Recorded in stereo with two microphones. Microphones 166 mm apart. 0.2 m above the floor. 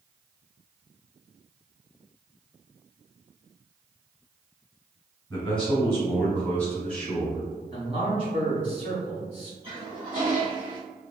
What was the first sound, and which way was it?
A man speaking, 10° left (ahead or behind).